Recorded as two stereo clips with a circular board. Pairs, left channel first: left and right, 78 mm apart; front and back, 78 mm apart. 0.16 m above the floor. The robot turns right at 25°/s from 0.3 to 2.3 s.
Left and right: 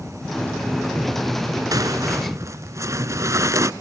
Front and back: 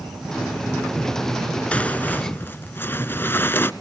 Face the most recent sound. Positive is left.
turn(degrees=-55)